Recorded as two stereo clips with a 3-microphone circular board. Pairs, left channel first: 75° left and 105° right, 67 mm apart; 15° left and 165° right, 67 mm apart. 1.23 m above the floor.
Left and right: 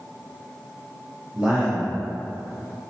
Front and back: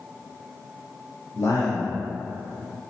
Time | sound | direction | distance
1.4 | a man speaking | 25° right | 0.9 m